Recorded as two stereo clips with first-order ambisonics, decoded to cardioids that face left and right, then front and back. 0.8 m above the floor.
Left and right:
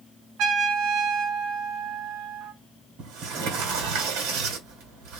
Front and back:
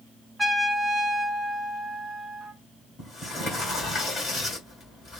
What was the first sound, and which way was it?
A trumpet, 90° right.